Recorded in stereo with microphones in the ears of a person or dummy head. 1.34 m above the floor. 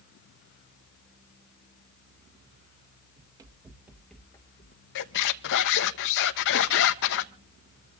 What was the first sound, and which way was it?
Running footsteps, 30° right (ahead or behind).